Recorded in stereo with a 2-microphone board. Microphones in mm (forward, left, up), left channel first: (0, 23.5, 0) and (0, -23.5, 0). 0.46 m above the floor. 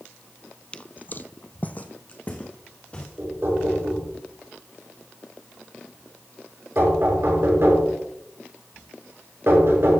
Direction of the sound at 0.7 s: 20° left (ahead or behind).